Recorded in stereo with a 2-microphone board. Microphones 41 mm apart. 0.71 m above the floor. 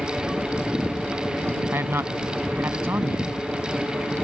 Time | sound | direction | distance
1.7 | a man speaking | 70° right (ahead or behind) | ?